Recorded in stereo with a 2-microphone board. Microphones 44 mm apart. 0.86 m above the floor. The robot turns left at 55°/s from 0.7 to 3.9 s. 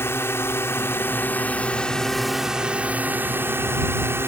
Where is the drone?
85° left; by 4.3 s 90° right.